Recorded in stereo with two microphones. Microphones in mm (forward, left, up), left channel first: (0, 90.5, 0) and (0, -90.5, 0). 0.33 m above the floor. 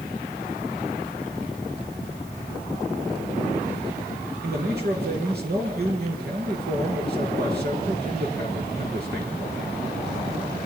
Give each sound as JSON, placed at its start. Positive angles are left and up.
{"t": 4.4, "sound": "a man speaking", "side_deg": -65, "distance_m": 6.0}